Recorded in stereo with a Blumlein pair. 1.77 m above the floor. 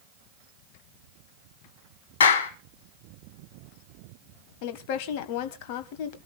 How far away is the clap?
About 3 m.